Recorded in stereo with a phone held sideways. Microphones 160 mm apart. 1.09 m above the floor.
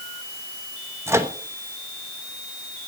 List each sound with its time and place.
1.1 s a microwave: 15° right (ahead or behind), 1.1 m